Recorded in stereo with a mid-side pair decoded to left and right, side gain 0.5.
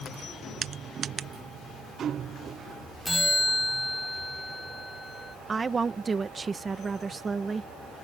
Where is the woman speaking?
35° right.